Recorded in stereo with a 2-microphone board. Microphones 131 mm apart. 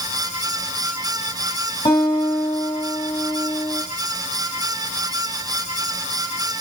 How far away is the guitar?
About 2.5 m.